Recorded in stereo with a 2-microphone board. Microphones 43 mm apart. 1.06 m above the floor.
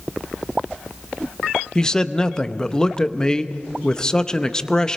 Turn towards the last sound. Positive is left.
turn(degrees=20)  # may be behind; listen again after turning